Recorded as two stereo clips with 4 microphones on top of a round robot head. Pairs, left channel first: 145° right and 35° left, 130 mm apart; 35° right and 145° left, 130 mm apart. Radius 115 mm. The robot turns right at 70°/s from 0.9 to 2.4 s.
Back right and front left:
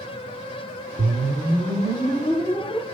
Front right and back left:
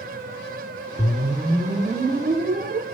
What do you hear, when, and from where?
1.0 s a whoosh: 40° left, 2 m; by 2.9 s 135° left, 2 m